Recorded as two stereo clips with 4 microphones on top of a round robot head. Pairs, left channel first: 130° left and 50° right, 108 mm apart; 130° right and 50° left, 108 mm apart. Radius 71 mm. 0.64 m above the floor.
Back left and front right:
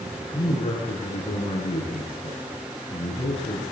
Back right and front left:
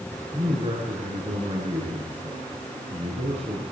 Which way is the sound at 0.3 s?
90° left.